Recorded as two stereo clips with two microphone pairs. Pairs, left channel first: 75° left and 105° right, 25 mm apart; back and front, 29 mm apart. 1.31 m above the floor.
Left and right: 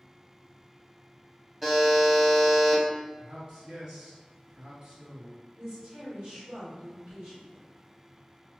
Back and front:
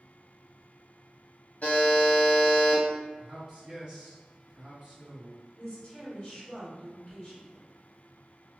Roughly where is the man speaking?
Ahead right.